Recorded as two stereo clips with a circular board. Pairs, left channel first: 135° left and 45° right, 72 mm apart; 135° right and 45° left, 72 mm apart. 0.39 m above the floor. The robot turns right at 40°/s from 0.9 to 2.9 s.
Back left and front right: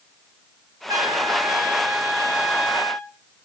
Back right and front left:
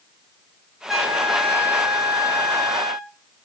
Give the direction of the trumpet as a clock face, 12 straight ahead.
1 o'clock.